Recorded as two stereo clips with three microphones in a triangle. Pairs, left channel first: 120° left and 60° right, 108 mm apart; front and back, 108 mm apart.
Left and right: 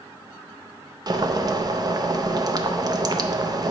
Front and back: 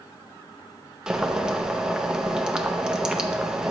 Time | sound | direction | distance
1.1 | boiling | 100° right | 0.5 m